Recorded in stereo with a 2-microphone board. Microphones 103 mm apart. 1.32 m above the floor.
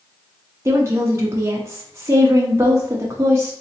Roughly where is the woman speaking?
Right.